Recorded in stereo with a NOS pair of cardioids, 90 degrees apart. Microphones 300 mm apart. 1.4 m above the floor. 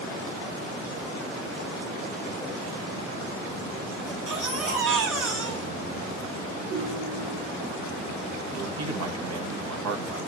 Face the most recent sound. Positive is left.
turn(degrees=-60)